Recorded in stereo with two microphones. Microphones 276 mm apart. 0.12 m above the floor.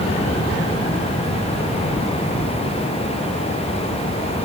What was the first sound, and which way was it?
Only background noise.